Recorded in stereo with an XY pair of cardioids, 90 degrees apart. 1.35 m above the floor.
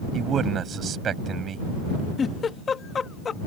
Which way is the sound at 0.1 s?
60° right.